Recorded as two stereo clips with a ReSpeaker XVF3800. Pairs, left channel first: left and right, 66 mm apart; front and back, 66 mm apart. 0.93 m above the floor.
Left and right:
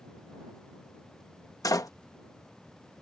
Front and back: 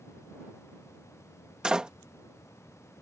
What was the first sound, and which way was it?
A door slam, 105° left.